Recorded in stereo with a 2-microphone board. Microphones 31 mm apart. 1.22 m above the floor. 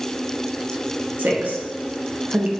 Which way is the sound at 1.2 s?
80° right.